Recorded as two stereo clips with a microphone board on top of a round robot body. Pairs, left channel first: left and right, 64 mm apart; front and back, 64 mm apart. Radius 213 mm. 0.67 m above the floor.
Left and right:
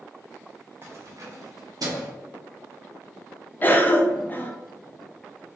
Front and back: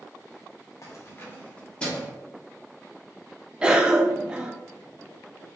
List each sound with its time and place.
0.8 s keys jangling: 40° right, 0.8 m; by 2.1 s 80° right, 1.2 m
3.6 s a cough: 115° left, 0.8 m